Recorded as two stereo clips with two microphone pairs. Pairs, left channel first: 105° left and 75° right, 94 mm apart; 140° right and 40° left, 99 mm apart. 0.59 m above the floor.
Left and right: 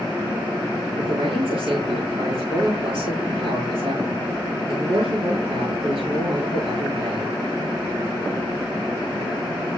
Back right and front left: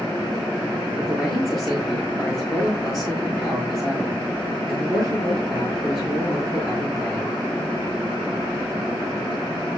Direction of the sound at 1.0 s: 50° right.